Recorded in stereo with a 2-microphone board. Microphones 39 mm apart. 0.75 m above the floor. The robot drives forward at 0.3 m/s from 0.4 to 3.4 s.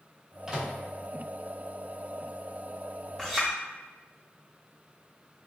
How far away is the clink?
About 0.8 m.